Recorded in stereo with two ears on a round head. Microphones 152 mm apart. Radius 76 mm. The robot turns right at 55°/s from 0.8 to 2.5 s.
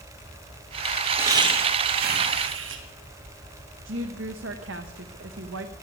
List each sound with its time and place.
1.2 s laughter: 165° right, 2.0 m; by 2.8 s 95° right, 2.0 m
3.9 s a woman speaking: 85° right, 0.9 m